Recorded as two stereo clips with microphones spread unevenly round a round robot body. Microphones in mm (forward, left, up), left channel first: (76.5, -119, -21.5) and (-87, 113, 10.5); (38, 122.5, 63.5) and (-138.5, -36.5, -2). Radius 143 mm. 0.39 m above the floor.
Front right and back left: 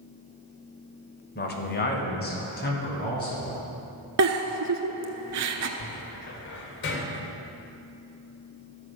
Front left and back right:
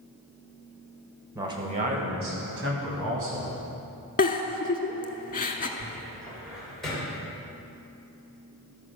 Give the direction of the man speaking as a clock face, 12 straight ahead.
3 o'clock.